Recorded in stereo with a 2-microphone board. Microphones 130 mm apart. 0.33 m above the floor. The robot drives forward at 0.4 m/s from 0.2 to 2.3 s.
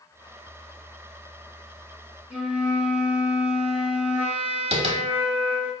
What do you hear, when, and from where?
2.3 s a flute: 10° right (ahead or behind), 1.8 m
4.7 s tapping: 50° right (ahead or behind), 1.1 m